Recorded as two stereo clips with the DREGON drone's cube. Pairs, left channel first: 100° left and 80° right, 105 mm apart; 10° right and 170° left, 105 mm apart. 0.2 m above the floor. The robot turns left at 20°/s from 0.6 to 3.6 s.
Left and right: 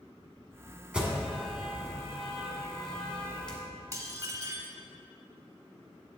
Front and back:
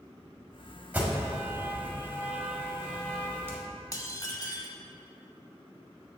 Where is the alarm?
145° right, 1.4 m; by 3.6 s 165° left, 1.4 m.